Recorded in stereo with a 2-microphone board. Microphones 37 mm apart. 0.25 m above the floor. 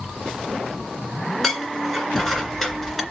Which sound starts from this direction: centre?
Dishes clattering, at 1.4 s.